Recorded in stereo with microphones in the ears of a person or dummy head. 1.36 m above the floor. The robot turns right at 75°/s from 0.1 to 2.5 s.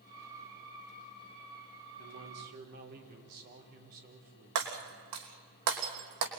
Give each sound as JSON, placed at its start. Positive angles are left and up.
{"t": 2.0, "sound": "a man speaking", "azimuth_deg": -90, "distance_m": 5.0}
{"t": 4.5, "sound": "breaking glass", "side_deg": -65, "distance_m": 3.5}